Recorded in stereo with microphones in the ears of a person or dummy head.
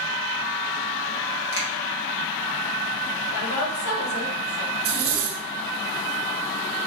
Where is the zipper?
35° right (ahead or behind), 1.1 m.